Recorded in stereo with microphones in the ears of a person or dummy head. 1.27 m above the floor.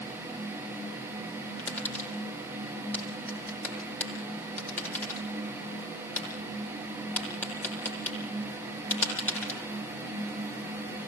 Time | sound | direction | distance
1.6 | tapping | 15° left (ahead or behind) | 9 m